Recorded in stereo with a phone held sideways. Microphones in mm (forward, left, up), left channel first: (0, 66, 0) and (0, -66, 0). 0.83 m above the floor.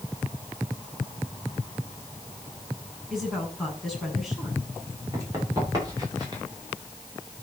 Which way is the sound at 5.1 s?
25° right (ahead or behind).